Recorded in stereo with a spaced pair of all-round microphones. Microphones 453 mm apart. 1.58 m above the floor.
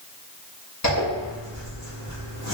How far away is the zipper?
About 1.3 m.